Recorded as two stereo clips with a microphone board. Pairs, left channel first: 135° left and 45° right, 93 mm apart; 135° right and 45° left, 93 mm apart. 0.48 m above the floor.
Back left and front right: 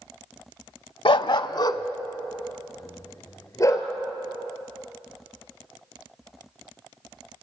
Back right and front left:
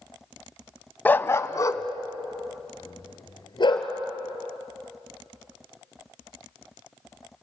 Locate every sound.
1.1 s a dog barking: 155° left, 0.6 m; by 3.9 s 170° right, 2.5 m